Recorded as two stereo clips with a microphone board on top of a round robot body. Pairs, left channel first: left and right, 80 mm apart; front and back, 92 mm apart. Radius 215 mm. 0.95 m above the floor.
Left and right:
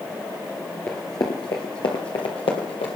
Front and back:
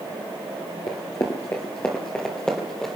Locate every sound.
0.9 s running footsteps: 35° left, 1.0 m; by 3.0 s 85° left, 2 m